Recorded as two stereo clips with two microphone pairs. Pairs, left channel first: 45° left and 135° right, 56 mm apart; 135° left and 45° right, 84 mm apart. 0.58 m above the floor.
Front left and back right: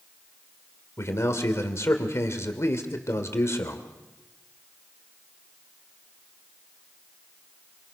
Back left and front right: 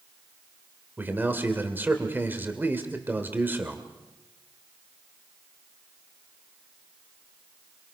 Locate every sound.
1.0 s a man speaking: 15° left, 2.5 m